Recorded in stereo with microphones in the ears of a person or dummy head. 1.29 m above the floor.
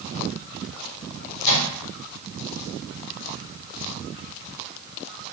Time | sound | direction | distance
1.4 | a microwave | 90° left | 1.6 m